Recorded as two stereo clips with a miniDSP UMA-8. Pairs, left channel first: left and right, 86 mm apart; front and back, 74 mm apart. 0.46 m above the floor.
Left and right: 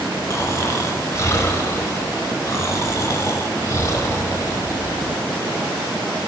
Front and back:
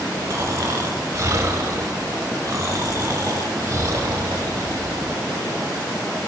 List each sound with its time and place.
0.3 s snoring: 140° left, 1.1 m